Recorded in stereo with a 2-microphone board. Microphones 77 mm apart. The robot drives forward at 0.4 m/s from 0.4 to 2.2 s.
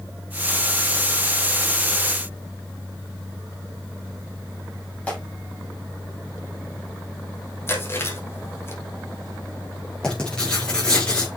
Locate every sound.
5.1 s tearing paper: 15° left (ahead or behind), 6 m
7.7 s chewing: 30° left (ahead or behind), 3.5 m
10.0 s writing: 10° left (ahead or behind), 5.5 m